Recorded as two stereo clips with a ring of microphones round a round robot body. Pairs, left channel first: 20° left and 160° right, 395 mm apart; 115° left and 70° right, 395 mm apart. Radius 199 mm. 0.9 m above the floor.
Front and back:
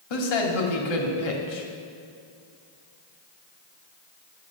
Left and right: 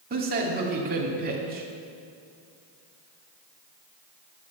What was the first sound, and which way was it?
A man speaking, straight ahead.